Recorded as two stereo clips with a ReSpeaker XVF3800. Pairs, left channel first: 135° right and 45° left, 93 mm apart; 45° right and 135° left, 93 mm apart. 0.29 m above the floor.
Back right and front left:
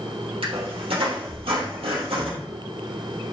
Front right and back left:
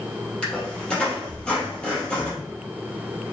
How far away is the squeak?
About 3 m.